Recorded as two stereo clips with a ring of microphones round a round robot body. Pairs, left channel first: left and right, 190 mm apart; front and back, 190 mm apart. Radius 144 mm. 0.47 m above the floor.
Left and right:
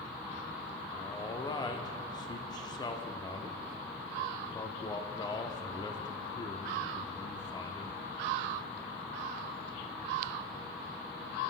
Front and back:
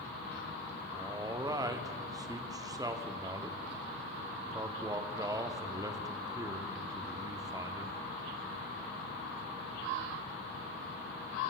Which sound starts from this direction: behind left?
A man speaking, at 0.9 s.